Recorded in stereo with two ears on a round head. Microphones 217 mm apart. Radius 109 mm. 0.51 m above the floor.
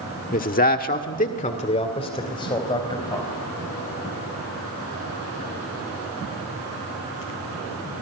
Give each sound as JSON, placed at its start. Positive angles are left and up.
{"t": 0.3, "sound": "a man speaking", "side_deg": 35, "distance_m": 1.5}